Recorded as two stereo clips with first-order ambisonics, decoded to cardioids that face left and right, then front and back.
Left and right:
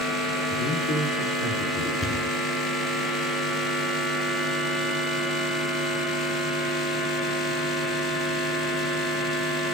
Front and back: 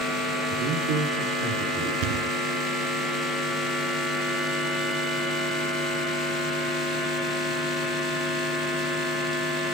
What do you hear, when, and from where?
0.5 s a man speaking: 145° left, 5.5 m
2.0 s a thud: 170° left, 1.0 m